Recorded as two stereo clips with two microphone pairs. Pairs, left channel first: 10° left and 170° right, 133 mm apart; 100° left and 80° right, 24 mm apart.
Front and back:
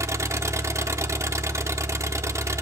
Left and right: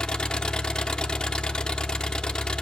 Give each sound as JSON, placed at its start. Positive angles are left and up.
{"t": 0.0, "sound": "an engine running", "azimuth_deg": 135, "distance_m": 0.9}